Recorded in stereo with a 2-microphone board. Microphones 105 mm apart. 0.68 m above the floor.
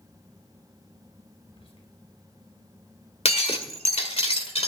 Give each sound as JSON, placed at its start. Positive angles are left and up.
{"t": 1.4, "sound": "whispering", "side_deg": 75, "distance_m": 3.0}
{"t": 3.2, "sound": "breaking glass", "side_deg": 80, "distance_m": 1.6}